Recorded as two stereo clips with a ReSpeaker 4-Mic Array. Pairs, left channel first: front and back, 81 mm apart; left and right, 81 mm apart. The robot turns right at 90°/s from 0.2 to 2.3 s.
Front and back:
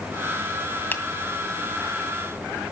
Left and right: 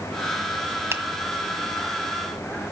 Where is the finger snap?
50° right, 1.5 m; by 1.0 s 40° right, 1.5 m.